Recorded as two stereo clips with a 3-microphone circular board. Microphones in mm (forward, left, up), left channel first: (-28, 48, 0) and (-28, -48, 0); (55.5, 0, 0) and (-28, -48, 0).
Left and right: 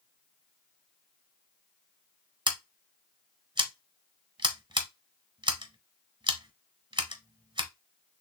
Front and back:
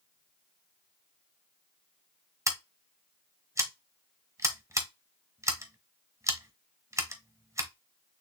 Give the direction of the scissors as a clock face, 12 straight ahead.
3 o'clock.